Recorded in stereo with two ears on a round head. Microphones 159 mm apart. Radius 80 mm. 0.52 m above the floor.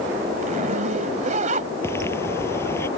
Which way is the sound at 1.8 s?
15° left (ahead or behind).